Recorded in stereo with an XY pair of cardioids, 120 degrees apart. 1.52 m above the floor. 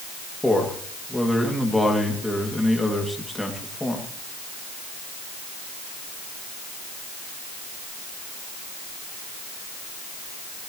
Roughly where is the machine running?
I don't hear a machine running.